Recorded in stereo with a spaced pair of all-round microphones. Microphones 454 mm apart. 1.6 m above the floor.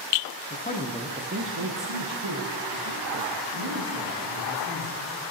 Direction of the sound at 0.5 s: 25° left (ahead or behind).